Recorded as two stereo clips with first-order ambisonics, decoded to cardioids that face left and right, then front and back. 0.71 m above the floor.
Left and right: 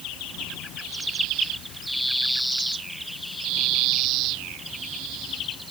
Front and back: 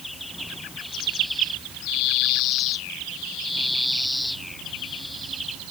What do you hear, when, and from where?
Only background noise.